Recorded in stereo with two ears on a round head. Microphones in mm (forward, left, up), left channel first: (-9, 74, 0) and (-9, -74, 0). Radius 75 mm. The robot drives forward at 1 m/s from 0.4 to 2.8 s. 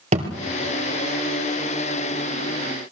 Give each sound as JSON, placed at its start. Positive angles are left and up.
{"t": 0.1, "sound": "a thud", "side_deg": -40, "distance_m": 2.5}